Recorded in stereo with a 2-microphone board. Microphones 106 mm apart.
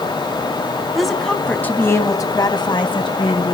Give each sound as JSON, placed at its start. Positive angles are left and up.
{"t": 0.9, "sound": "a woman speaking", "side_deg": 0, "distance_m": 2.0}